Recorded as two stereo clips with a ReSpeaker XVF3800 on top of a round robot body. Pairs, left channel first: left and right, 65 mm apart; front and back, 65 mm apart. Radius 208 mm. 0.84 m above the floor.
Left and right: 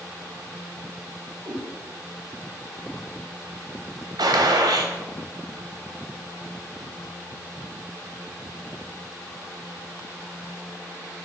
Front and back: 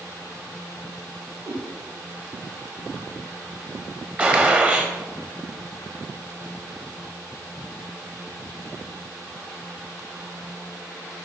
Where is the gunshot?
110° right, 0.8 m.